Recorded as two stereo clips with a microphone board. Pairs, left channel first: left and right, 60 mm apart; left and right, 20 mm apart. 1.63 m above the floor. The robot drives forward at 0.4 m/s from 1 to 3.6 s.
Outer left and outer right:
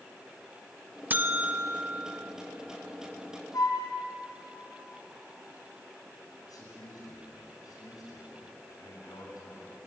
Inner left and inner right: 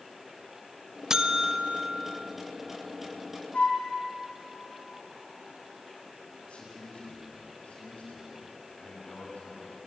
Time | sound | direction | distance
1.1 | a buzzer | 30° right (ahead or behind) | 1.1 m
3.5 | a flute | 85° left | 5.5 m
6.4 | a man speaking | 80° left | 10 m